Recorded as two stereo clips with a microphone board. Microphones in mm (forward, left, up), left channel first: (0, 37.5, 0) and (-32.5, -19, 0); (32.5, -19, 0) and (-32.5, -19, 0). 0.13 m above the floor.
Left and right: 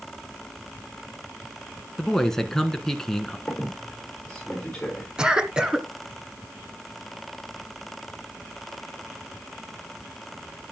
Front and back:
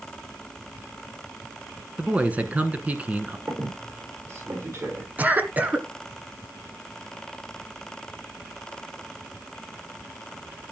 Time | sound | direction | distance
2.0 | a man speaking | 135° left | 1.4 m
3.5 | a squeak | 135° left | 6 m
5.2 | a cough | straight behind | 1.7 m